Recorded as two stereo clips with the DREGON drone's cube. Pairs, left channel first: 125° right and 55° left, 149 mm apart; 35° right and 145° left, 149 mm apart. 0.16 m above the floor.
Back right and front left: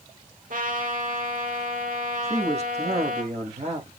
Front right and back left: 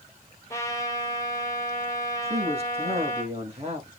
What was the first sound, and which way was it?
A trumpet, 35° left.